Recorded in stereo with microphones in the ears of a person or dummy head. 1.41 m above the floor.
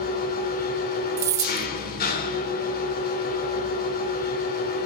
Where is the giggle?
No giggle in this recording.